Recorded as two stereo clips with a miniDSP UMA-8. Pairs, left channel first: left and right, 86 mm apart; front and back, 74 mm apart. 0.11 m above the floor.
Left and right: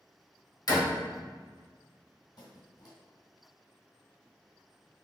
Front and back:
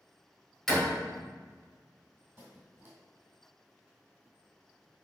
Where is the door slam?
80° left, 1.6 m.